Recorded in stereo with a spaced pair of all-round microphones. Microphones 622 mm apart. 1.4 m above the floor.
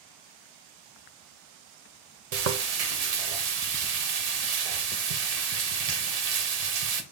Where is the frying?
75° right (ahead or behind), 0.7 m.